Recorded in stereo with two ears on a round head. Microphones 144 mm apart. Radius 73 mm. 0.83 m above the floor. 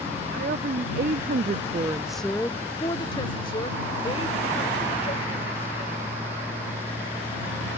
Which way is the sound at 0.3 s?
55° right (ahead or behind).